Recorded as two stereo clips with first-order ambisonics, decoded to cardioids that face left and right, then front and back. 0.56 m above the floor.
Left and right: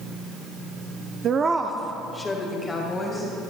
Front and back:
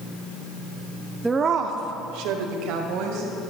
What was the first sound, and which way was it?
A woman speaking, 100° right.